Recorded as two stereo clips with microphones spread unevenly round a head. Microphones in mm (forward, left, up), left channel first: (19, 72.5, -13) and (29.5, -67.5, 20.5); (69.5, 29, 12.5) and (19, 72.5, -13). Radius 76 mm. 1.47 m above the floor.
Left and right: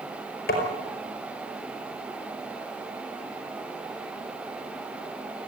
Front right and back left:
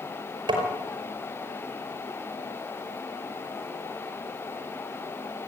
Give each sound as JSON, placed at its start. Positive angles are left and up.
{"t": 0.5, "sound": "tapping", "azimuth_deg": 130, "distance_m": 5.0}